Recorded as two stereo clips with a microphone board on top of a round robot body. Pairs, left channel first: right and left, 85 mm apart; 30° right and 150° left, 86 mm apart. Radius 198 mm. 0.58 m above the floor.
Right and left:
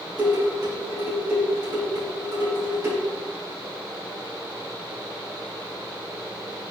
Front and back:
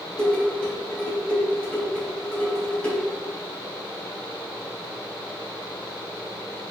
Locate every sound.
0.2 s dishes clattering: 50° left, 3 m